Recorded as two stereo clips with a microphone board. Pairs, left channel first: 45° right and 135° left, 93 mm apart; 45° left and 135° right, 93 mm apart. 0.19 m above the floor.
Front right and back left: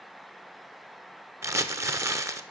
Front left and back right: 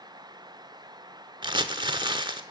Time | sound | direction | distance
1.4 | crumpling | 170° right | 0.6 m